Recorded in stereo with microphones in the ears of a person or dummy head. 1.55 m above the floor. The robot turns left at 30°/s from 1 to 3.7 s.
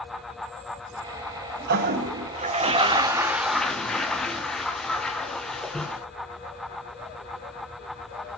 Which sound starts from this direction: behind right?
A toilet flushing, at 1.7 s.